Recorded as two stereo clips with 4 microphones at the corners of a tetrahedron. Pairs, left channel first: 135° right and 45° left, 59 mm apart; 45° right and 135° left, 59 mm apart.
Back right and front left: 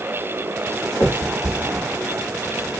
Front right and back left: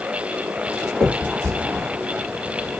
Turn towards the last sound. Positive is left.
turn(degrees=-120)